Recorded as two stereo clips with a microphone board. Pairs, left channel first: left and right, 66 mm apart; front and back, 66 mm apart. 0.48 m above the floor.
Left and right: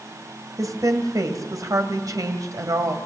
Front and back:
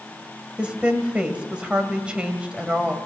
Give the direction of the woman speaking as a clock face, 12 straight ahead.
4 o'clock.